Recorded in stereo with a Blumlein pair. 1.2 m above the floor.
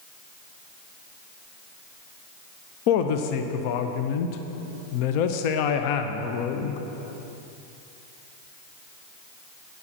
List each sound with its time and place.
2.9 s a woman speaking: 45° left, 0.7 m